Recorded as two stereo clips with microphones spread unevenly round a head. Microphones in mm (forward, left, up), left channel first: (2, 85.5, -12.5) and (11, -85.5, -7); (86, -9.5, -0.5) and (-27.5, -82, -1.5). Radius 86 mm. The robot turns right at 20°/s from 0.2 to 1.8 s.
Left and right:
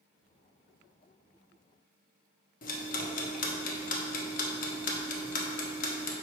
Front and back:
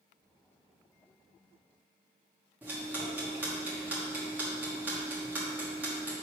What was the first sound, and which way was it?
Ticking, 135° left.